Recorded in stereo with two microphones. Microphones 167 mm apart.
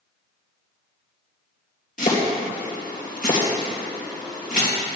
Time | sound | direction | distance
2.0 | chopping | 55° left (ahead or behind) | 3.5 m